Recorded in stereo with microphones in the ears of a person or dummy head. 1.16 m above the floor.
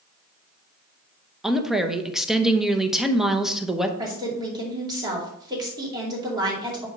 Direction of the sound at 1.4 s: Centre (ahead or behind).